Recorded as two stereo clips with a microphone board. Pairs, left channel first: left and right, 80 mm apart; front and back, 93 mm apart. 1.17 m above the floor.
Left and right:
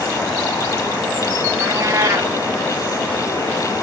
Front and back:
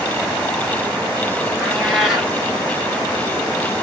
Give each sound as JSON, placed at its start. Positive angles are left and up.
{"t": 1.6, "sound": "a cat meowing", "azimuth_deg": -95, "distance_m": 1.1}